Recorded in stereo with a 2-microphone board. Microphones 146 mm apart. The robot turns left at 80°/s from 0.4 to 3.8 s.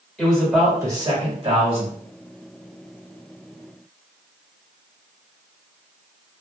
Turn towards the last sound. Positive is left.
turn(degrees=95)